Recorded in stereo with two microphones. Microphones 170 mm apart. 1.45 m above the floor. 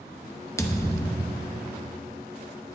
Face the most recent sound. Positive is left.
turn(degrees=20)  # may be behind; listen again after turning